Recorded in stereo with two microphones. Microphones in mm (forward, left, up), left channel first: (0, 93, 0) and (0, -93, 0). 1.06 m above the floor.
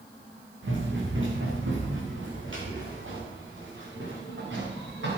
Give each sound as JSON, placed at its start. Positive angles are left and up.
{"t": 0.6, "sound": "running footsteps", "side_deg": -75, "distance_m": 5.5}